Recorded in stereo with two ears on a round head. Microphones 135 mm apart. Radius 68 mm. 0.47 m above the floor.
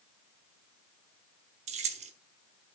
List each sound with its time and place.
1.7 s keys jangling: 45° right (ahead or behind), 1.0 m